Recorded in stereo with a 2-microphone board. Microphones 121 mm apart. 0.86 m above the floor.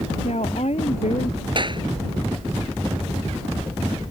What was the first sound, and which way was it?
A woman speaking, 60° left (ahead or behind).